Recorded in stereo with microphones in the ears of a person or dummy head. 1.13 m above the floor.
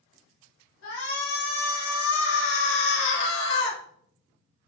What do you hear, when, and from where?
0.8 s a shout: 75° left (ahead or behind), 2.5 m; by 3.8 s 65° left (ahead or behind), 1.6 m